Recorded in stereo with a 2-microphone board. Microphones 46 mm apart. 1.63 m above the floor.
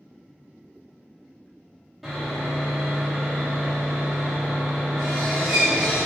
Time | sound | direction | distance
2.0 | sawing | centre (ahead or behind) | 1.0 m